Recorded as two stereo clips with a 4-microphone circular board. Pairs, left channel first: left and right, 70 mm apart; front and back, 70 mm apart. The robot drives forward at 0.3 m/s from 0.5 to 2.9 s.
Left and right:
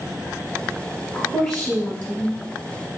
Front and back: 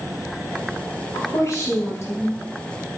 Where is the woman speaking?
25° left, 1.8 m; by 2.4 s 35° left, 1.6 m.